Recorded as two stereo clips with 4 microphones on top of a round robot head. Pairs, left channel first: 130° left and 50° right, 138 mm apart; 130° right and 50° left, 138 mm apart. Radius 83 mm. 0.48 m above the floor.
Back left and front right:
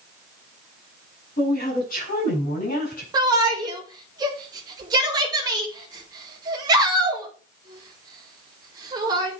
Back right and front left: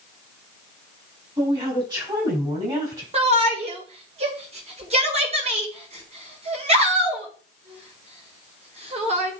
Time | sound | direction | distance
1.4 | a woman speaking | 105° left | 5 m
3.1 | a shout | 10° left | 1.7 m